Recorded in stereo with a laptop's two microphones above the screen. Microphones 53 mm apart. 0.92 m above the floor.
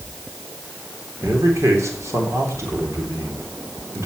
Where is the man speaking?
65° right (ahead or behind), 3.5 m.